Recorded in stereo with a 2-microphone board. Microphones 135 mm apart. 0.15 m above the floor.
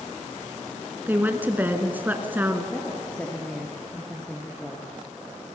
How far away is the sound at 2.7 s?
About 3 m.